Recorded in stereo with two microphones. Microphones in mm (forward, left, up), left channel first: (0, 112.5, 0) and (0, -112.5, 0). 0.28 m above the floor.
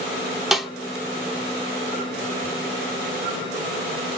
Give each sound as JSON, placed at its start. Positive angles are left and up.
{"t": 0.5, "sound": "a snare drum", "side_deg": 0, "distance_m": 0.8}